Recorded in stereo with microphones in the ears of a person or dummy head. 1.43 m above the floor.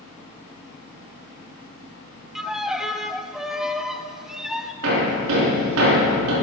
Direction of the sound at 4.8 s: 80° right.